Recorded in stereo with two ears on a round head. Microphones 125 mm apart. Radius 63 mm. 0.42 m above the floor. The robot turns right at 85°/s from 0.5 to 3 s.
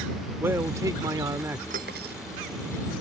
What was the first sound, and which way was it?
A man speaking, 20° right (ahead or behind).